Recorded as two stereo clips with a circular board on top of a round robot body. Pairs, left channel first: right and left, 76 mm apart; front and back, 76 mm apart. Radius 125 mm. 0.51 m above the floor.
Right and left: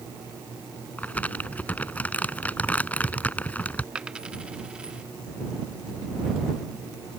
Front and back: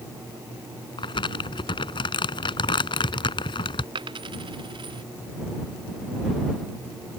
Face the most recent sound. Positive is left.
turn(degrees=170)